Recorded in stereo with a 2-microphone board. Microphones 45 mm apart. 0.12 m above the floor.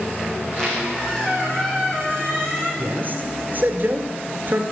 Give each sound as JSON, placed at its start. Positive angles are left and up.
{"t": 0.4, "sound": "a squeak", "side_deg": 20, "distance_m": 5.0}
{"t": 2.8, "sound": "a man speaking", "side_deg": -50, "distance_m": 1.6}